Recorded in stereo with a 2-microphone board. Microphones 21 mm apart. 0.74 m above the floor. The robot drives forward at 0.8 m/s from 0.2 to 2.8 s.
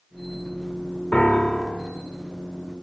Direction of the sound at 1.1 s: 75° left (ahead or behind).